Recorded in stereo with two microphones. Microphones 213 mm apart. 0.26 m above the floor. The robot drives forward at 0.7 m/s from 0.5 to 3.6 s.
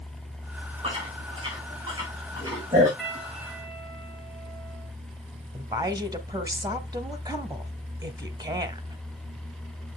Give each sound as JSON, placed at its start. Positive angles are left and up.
{"t": 0.8, "sound": "chewing", "side_deg": -25, "distance_m": 4.0}
{"t": 3.0, "sound": "a piano", "side_deg": 0, "distance_m": 7.0}
{"t": 5.5, "sound": "a woman speaking", "side_deg": -20, "distance_m": 1.3}